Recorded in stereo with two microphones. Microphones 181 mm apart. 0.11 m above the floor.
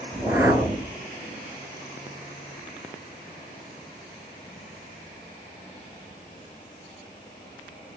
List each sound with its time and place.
0.1 s a whoosh: 15° right (ahead or behind), 0.7 m